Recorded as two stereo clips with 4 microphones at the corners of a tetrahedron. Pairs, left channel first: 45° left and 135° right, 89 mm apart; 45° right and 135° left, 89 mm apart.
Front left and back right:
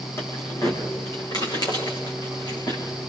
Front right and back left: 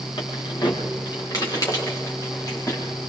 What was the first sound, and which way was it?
Keys jangling, 15° right.